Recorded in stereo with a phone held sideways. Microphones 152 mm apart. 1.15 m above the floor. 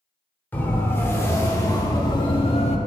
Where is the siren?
10° left (ahead or behind), 3 m; by 2.8 s 45° left (ahead or behind), 1.5 m.